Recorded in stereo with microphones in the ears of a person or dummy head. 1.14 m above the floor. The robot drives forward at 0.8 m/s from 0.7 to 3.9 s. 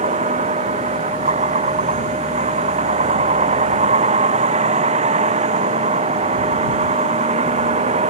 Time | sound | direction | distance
0.0 | a vehicle | 30° right (ahead or behind) | ?